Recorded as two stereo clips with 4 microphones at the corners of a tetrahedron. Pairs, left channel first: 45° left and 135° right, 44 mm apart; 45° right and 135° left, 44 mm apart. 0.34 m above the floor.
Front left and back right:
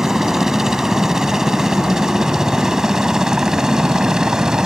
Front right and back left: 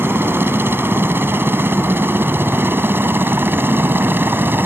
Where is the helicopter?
145° left; by 4.7 s 150° left.